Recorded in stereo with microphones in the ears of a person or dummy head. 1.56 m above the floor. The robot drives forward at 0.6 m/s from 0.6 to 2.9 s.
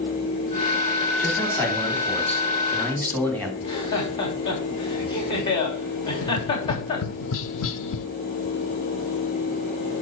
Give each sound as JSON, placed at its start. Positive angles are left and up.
{"t": 1.2, "sound": "a man speaking", "side_deg": 5, "distance_m": 3.5}
{"t": 3.6, "sound": "laughter", "side_deg": 25, "distance_m": 3.0}
{"t": 6.2, "sound": "tapping", "side_deg": 75, "distance_m": 0.7}